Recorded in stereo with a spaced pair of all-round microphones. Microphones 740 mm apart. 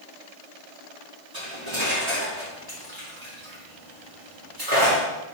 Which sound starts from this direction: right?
Cutlery clinking, at 1.3 s.